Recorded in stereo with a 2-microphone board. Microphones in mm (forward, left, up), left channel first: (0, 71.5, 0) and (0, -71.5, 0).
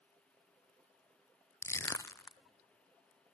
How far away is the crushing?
About 0.5 m.